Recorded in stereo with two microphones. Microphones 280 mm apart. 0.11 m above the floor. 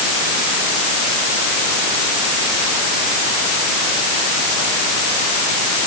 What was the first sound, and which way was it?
Only background noise.